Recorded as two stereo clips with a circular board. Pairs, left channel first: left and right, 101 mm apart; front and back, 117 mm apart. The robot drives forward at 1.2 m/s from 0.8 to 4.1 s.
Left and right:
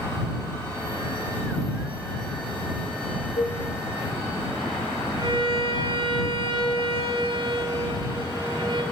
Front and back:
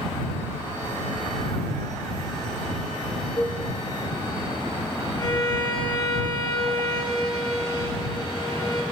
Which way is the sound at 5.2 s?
50° right.